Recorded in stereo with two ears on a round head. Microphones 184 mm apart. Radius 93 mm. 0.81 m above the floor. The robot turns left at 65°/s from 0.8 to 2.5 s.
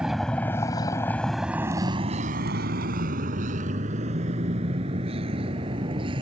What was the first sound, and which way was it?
A vehicle, 5° right (ahead or behind).